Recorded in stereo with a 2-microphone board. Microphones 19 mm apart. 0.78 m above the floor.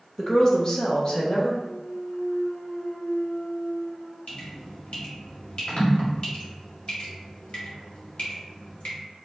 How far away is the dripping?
About 2 m.